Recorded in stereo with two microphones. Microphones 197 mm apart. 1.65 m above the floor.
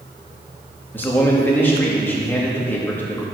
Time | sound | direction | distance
0.9 | a man speaking | 10° left (ahead or behind) | 2.5 m